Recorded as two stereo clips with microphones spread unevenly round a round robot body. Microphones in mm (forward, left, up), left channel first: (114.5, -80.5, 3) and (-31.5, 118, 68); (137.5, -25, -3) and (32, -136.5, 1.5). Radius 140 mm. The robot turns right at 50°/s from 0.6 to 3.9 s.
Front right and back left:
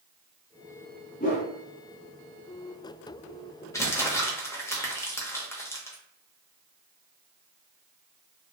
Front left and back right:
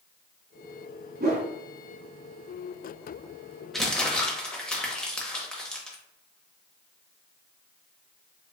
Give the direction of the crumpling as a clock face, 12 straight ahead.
1 o'clock.